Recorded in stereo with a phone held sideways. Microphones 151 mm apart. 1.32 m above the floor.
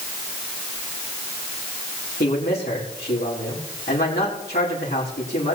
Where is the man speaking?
85° left, 4 m.